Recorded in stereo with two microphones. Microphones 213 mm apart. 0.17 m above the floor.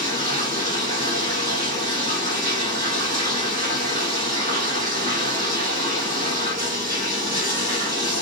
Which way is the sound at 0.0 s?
45° right (ahead or behind).